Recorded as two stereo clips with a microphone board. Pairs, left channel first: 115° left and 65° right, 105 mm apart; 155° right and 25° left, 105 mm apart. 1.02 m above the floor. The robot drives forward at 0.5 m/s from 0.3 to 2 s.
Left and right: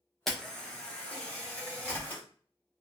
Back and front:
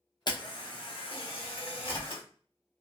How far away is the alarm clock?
I don't hear an alarm clock.